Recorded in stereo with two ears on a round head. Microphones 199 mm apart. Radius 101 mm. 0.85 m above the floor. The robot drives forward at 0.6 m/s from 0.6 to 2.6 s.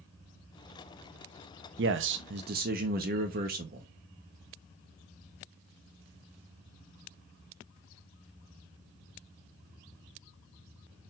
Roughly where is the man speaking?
Right.